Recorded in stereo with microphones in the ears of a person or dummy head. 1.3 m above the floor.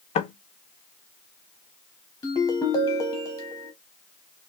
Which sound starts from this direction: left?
Knocking, at 0.1 s.